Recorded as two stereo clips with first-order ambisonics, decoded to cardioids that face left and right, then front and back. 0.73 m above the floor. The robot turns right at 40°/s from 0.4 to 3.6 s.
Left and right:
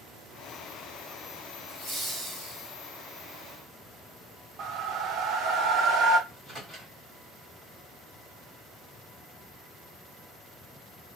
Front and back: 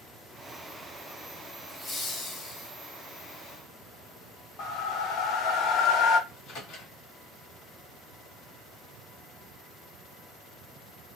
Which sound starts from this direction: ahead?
A microwave, at 6.3 s.